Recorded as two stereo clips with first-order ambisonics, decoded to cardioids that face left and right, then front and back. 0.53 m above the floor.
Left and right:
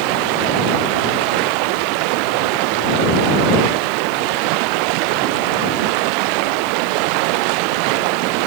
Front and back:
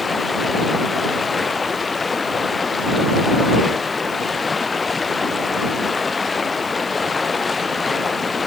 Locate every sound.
0.0 s running water: 75° right